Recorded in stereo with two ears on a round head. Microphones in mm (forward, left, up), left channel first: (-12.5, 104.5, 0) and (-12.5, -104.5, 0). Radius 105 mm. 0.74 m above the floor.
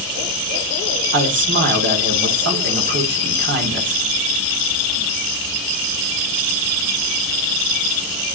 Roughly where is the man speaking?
Right.